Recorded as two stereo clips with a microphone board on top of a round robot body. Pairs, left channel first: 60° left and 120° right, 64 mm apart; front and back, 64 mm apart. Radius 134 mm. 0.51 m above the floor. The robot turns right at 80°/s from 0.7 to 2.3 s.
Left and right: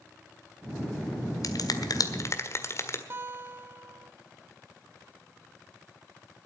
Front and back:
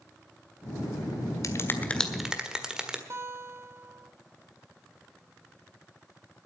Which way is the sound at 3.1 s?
155° right.